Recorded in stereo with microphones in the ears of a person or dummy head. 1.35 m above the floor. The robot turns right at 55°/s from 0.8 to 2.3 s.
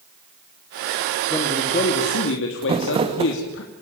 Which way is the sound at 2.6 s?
30° right (ahead or behind).